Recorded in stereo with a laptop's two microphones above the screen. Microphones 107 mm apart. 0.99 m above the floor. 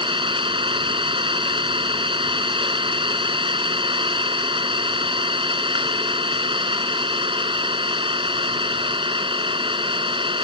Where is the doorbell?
No doorbell in this recording.